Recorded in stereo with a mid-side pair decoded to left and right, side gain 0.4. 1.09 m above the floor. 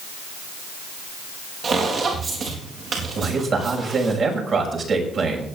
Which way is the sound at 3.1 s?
55° right.